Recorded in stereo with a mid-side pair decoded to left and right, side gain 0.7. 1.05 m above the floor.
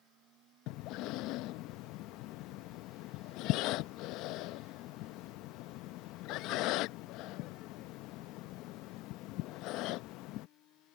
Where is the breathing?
60° left.